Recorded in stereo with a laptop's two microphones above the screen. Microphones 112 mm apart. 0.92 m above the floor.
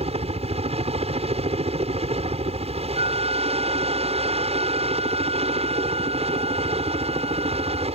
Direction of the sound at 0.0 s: 65° right (ahead or behind).